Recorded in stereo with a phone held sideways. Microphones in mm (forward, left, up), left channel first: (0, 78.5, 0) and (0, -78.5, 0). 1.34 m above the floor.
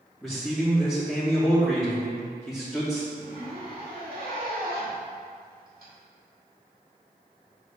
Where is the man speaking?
Centre (ahead or behind), 2.5 m.